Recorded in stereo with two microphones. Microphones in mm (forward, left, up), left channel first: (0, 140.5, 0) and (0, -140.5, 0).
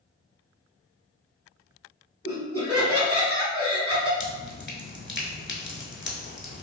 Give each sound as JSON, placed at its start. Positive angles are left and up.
{"t": 2.2, "sound": "laughter", "side_deg": 10, "distance_m": 1.8}
{"t": 4.2, "sound": "dripping", "side_deg": 40, "distance_m": 0.7}